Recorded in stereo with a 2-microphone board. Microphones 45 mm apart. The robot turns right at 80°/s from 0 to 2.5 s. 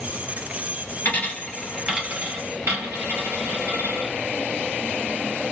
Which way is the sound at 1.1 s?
45° left (ahead or behind).